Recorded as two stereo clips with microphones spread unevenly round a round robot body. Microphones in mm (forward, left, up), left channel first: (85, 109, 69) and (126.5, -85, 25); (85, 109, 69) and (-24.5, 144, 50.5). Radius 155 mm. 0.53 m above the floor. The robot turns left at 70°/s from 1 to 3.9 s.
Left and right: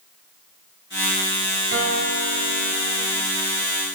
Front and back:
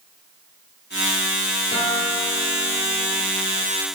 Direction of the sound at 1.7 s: 75° right.